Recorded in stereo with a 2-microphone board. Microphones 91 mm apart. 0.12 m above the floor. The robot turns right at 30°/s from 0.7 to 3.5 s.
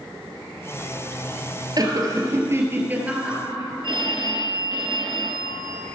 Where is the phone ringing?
65° right (ahead or behind), 1.7 m.